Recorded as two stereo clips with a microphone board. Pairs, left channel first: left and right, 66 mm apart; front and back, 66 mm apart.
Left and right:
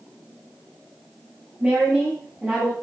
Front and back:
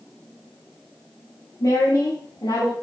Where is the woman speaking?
25° right, 6 m; by 2.7 s 15° right, 6 m.